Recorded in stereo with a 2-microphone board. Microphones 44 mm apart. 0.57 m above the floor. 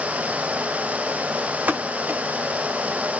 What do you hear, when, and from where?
1.7 s a pop: 40° right (ahead or behind), 1.3 m